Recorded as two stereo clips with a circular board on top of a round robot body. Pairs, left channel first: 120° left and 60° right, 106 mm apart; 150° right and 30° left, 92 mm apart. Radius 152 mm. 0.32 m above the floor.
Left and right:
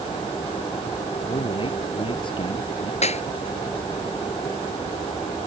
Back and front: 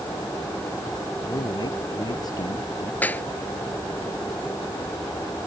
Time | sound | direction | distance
1.2 | a man speaking | 160° left | ?
3.0 | a clap | 135° left | ?